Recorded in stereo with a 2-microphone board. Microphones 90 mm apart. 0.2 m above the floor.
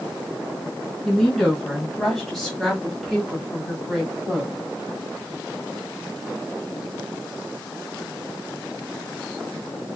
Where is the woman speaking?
5° left (ahead or behind), 1.8 m; by 4.5 s 5° right (ahead or behind), 1.8 m.